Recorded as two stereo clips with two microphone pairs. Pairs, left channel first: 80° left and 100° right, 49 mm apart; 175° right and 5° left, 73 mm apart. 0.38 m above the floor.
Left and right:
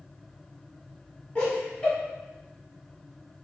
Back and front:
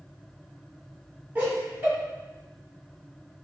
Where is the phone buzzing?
No phone buzzing in this recording.